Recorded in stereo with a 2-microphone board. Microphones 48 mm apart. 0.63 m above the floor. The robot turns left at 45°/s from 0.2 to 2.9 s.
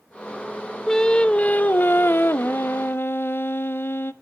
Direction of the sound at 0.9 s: 165° left.